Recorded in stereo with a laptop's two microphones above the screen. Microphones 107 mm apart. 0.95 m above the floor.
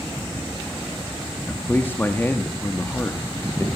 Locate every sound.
1.5 s a man speaking: 20° left (ahead or behind), 1.5 m